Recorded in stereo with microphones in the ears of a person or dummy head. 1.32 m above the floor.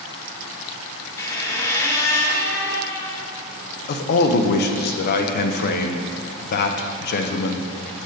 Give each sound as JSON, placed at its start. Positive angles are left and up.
{"t": 1.2, "sound": "a squeak", "side_deg": 20, "distance_m": 0.9}
{"t": 3.9, "sound": "a man speaking", "side_deg": 55, "distance_m": 0.7}